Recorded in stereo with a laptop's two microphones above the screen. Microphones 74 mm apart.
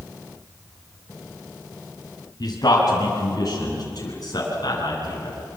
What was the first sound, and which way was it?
A man speaking, 55° left (ahead or behind).